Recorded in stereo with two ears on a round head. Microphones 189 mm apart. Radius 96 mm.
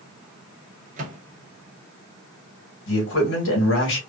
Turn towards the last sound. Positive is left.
turn(degrees=60)  # may be behind; listen again after turning